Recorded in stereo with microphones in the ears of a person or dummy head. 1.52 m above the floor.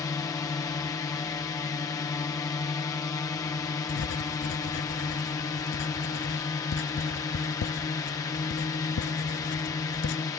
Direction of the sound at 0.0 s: 15° left (ahead or behind).